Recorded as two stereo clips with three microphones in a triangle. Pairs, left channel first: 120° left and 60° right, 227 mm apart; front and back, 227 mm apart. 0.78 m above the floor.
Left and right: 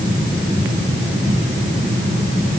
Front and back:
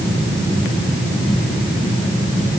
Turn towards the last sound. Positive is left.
No sound to turn to.